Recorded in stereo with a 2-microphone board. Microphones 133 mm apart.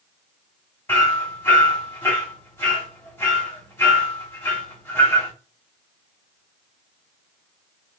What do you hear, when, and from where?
0.9 s hammering: 20° left (ahead or behind), 1.6 m